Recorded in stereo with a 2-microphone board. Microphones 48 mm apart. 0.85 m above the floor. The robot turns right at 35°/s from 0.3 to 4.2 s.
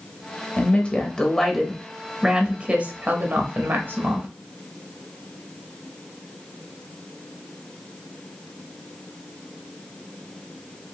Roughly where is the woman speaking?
Behind left.